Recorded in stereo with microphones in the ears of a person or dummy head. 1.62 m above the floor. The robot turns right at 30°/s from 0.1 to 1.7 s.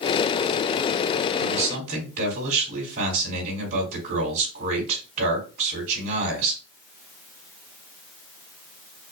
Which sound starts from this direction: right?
A man speaking, at 1.4 s.